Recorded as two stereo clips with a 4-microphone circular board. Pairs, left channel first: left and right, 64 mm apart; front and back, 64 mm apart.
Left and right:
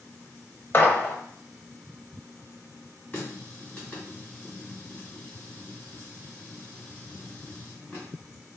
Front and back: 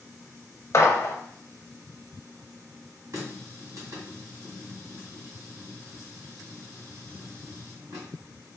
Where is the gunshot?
35° left, 0.7 m.